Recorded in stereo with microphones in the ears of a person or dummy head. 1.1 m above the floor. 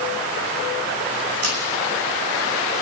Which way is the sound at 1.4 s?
75° right (ahead or behind).